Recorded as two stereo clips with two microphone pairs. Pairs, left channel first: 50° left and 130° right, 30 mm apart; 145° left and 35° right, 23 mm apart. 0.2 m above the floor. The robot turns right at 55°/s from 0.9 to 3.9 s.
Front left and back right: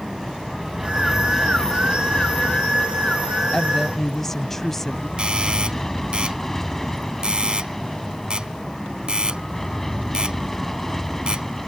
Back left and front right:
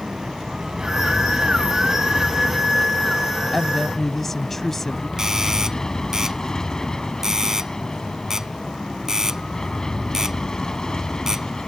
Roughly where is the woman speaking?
Left.